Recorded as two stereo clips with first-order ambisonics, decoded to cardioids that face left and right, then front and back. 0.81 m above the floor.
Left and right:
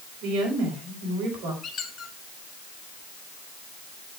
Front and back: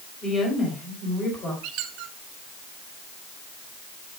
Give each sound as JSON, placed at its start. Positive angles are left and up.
{"t": 0.2, "sound": "a woman speaking", "azimuth_deg": -65, "distance_m": 4.5}
{"t": 1.6, "sound": "a squeak", "azimuth_deg": 155, "distance_m": 1.3}